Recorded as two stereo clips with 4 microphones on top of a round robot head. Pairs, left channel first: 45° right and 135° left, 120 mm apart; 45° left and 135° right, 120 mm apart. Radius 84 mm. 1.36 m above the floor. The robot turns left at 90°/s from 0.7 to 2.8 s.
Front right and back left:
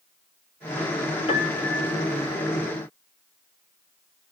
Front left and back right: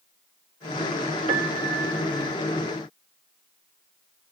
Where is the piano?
90° right, 1.7 m; by 2.4 s 170° left, 1.7 m.